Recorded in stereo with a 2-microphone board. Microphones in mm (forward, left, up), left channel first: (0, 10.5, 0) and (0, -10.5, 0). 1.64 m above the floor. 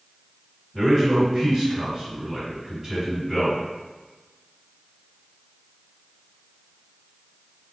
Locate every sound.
0.7 s a man speaking: 30° right (ahead or behind), 1.5 m